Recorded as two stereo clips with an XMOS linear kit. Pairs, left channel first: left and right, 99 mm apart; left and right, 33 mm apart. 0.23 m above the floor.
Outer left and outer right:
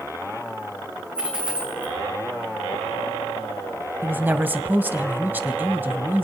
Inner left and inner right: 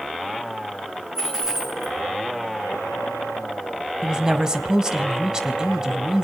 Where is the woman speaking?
20° right (ahead or behind), 1.0 m.